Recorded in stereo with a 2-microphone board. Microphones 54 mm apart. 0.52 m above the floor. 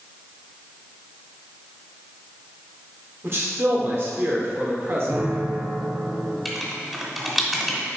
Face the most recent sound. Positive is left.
turn(degrees=0)  # may be behind; listen again after turning